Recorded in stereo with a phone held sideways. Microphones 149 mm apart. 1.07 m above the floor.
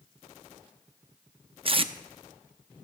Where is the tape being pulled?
40° right (ahead or behind), 0.5 m.